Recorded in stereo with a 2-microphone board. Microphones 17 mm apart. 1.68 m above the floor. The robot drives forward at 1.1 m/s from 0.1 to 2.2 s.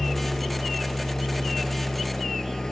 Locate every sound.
0.0 s an engine running: 35° left (ahead or behind); by 2.7 s 40° left (ahead or behind)